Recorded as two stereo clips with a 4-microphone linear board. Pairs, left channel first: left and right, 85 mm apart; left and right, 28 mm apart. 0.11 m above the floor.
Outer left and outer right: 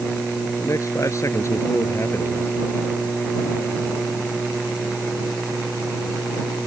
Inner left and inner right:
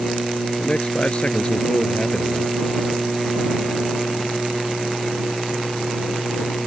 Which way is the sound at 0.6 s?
40° left (ahead or behind).